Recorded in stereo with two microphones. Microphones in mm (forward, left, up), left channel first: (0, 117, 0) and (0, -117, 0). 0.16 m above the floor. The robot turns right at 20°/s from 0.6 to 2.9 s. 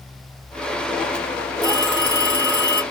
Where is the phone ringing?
60° left (ahead or behind), 2.5 m; by 2.8 s 45° left (ahead or behind), 2.5 m.